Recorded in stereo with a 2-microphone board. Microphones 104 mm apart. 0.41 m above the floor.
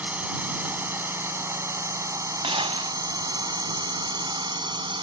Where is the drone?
15° right (ahead or behind); by 5.0 s 50° right (ahead or behind).